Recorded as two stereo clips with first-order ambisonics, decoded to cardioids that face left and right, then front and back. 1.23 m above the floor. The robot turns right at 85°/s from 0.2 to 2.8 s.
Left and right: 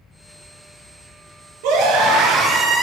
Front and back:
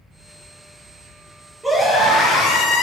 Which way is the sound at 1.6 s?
95° right.